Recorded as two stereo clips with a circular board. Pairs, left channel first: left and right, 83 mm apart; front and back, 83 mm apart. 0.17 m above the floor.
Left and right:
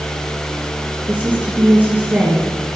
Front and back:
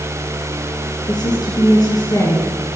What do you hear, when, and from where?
1.1 s a woman speaking: 20° right, 2.5 m